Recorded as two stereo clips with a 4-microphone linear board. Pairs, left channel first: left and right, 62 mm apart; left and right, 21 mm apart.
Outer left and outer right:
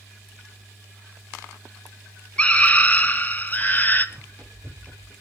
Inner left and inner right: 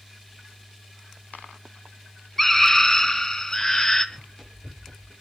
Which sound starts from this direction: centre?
A scream, at 2.4 s.